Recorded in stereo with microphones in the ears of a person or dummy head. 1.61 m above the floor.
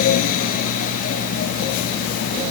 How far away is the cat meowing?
No cat meowing in this recording.